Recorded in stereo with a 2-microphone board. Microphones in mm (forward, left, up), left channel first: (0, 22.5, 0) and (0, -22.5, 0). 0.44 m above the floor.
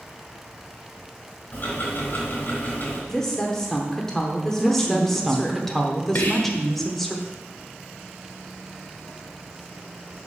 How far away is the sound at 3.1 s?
About 0.8 m.